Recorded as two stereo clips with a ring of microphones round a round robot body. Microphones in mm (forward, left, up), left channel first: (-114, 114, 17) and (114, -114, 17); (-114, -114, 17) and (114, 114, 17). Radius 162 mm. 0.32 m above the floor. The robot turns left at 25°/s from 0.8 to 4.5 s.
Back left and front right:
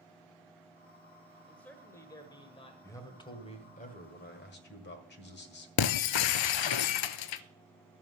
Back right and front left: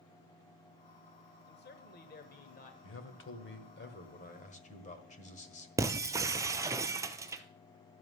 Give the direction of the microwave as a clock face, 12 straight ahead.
I don't hear a microwave.